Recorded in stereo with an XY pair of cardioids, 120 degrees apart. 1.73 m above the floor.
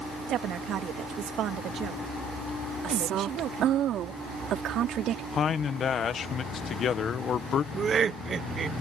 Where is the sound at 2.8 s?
60° right.